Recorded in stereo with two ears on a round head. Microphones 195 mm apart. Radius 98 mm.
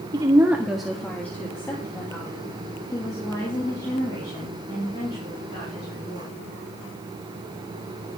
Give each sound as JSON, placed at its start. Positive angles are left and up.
{"t": 0.1, "sound": "a woman speaking", "side_deg": -20, "distance_m": 1.2}